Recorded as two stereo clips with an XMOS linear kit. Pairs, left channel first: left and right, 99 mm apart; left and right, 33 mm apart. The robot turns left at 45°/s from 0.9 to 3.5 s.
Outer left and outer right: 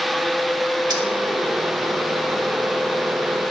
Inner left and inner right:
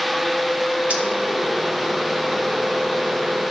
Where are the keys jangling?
45° right (ahead or behind), 1.4 m.